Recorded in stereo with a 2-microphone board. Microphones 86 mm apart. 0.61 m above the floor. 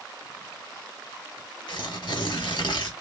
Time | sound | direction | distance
1.7 | tearing paper | 65° left (ahead or behind) | 0.9 m